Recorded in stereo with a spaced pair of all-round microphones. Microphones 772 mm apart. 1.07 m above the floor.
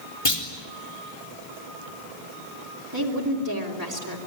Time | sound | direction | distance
0.2 | a clunk | 40° left (ahead or behind) | 3.5 m
2.9 | a woman speaking | 25° right (ahead or behind) | 3.5 m